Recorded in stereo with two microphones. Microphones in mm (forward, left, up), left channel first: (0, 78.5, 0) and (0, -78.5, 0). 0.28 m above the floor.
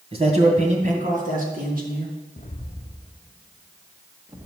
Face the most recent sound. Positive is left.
turn(degrees=-15)  # may be behind; listen again after turning